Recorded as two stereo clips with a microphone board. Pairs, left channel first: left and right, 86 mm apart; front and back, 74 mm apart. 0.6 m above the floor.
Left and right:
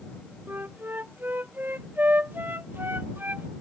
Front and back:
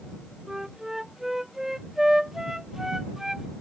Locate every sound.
0.5 s a flute: 105° right